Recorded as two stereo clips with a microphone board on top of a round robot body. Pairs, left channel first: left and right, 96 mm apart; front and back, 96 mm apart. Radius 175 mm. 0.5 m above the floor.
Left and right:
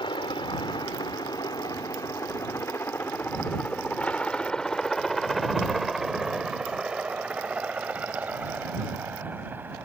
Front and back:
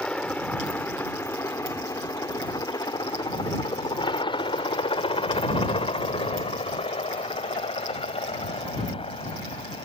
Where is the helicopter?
75° left; by 9.9 s 20° right.